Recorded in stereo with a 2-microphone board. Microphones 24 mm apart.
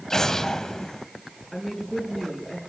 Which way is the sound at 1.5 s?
15° left (ahead or behind).